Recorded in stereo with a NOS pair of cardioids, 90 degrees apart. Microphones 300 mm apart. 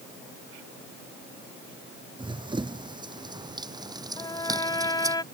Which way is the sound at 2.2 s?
15° right.